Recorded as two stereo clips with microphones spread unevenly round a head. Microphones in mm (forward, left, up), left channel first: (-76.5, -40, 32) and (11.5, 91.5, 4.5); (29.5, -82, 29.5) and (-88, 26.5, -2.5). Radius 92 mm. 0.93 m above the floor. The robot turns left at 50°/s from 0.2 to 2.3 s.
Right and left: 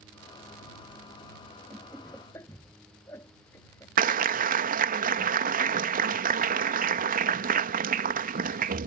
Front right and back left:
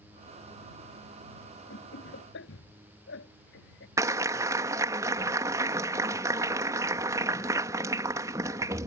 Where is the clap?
70° left.